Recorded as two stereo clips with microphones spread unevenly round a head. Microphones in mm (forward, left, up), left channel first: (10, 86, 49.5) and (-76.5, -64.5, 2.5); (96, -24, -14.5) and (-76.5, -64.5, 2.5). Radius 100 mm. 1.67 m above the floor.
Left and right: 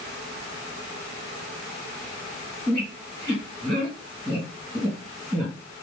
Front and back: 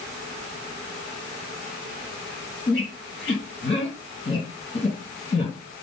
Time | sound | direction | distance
2.7 | a squeak | 50° right | 3 m